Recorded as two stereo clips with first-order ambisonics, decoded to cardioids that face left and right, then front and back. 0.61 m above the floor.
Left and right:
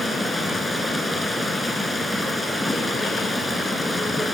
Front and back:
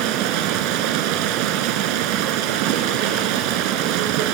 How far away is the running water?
About 2 m.